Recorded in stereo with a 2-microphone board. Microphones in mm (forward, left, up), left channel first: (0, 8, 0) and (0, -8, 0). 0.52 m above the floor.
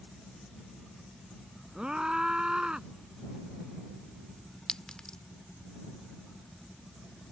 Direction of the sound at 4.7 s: 55° left (ahead or behind).